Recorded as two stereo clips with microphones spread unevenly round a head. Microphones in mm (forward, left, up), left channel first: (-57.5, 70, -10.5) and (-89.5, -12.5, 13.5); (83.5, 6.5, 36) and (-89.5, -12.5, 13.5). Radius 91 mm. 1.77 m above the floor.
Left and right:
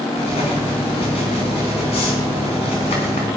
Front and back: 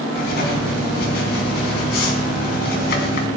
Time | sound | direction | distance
0.1 | writing | 25° left | 3 m